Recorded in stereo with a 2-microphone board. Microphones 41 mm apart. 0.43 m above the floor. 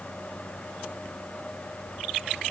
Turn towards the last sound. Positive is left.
No sound to turn to.